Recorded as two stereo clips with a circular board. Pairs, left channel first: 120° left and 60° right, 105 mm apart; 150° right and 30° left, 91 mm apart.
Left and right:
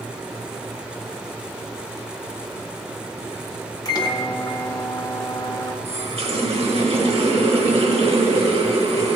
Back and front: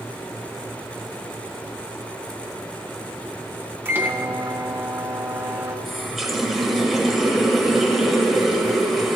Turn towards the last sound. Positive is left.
turn(degrees=-60)